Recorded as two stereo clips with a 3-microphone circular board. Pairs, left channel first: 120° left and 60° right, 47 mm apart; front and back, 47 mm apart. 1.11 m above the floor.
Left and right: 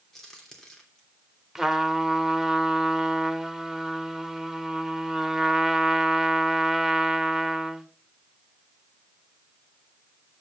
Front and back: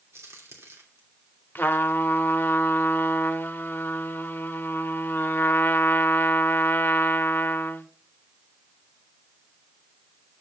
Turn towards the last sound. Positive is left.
turn(degrees=20)